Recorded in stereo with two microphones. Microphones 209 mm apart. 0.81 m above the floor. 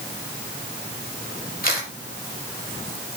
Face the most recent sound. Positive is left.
turn(degrees=45)  # may be behind; listen again after turning